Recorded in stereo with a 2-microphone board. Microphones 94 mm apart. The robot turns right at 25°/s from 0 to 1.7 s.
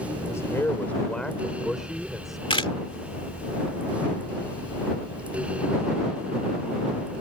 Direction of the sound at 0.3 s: 150° left.